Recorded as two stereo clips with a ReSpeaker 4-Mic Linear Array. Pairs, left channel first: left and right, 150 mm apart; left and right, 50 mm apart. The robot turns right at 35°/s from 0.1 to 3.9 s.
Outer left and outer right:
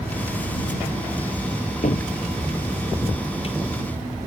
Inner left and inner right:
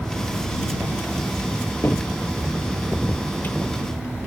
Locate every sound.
1.8 s a cupboard door: 55° left (ahead or behind); by 3.6 s 40° left (ahead or behind)